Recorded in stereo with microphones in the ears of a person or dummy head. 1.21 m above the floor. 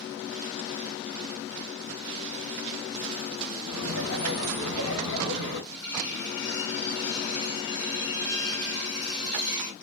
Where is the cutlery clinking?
70° left (ahead or behind), 0.9 m.